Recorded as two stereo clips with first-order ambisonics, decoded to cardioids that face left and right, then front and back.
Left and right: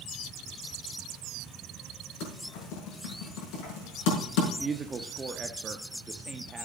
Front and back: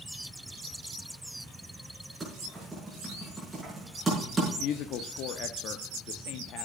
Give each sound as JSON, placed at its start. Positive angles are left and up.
{"t": 2.2, "sound": "typing on a keyboard", "azimuth_deg": 100, "distance_m": 6.0}
{"t": 4.6, "sound": "a woman speaking", "azimuth_deg": -20, "distance_m": 0.8}